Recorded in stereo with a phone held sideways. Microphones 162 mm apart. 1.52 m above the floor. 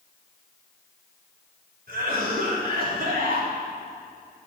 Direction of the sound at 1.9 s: 70° right (ahead or behind).